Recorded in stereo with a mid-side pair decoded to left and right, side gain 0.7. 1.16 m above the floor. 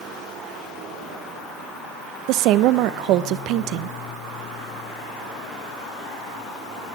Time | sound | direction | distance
2.3 | a woman speaking | 60° right | 0.7 m